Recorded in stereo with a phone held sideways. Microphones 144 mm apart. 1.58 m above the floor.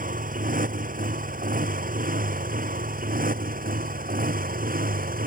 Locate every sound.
0.0 s a motorcycle: 70° right (ahead or behind); by 5.3 s 75° right (ahead or behind)